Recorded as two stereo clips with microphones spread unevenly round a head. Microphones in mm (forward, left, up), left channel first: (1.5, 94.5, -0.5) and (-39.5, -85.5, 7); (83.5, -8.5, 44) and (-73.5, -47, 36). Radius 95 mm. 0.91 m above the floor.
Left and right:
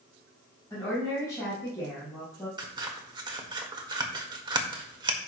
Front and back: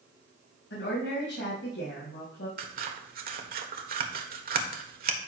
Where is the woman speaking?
5° left, 5.5 m.